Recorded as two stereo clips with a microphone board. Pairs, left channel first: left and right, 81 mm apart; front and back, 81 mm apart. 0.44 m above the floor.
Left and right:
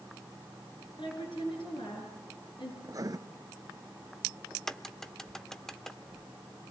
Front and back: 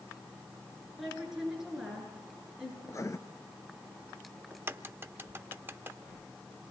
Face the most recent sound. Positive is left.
turn(degrees=170)